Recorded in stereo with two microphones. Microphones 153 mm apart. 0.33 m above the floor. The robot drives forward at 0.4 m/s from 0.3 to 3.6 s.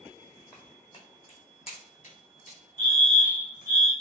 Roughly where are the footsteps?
Left.